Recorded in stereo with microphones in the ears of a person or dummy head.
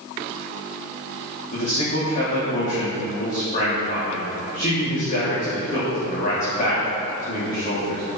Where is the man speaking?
45° left (ahead or behind), 3.5 m.